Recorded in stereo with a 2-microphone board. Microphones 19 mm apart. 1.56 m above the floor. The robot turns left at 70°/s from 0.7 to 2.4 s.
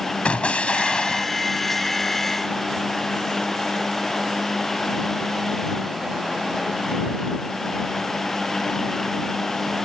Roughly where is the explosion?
Left.